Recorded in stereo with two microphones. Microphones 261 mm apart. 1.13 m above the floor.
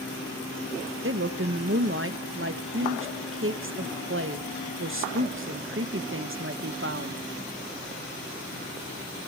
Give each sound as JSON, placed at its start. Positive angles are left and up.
{"t": 1.0, "sound": "a woman speaking", "side_deg": -50, "distance_m": 1.2}